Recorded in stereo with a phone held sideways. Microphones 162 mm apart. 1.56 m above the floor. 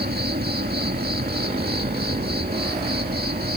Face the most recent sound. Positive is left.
turn(degrees=-70)  # may be behind; listen again after turning